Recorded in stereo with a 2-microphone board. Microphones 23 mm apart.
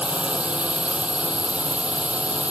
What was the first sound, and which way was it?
A drone, 75° right (ahead or behind).